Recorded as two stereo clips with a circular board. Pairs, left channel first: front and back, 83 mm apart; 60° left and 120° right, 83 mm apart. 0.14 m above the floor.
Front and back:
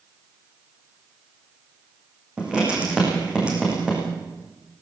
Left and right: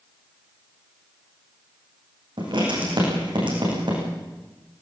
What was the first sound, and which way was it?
Writing, 105° right.